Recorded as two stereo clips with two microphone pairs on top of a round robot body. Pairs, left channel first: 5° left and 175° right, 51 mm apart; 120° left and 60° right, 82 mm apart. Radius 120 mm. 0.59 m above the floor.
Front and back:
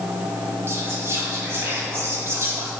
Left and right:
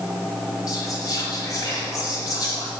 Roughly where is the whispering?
Behind.